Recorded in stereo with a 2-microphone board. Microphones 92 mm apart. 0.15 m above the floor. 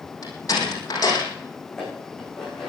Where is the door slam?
45° left (ahead or behind), 6 m.